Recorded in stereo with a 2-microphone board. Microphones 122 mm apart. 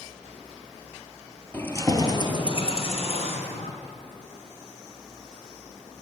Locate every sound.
1.5 s keys jangling: 15° left (ahead or behind), 2.5 m; by 3.7 s 65° left (ahead or behind), 4 m